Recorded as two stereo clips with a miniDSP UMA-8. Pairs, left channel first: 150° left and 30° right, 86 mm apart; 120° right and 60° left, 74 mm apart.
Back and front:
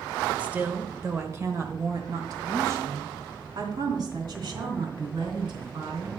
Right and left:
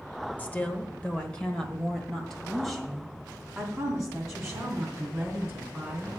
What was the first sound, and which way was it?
A woman speaking, 85° right.